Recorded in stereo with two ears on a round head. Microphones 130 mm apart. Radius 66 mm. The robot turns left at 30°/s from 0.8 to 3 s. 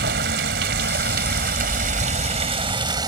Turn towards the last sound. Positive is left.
turn(degrees=-150)